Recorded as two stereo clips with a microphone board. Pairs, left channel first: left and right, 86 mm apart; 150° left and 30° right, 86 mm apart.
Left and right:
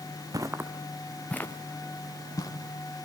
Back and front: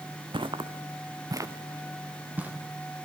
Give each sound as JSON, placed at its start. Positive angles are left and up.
{"t": 0.3, "sound": "footsteps", "azimuth_deg": -45, "distance_m": 1.3}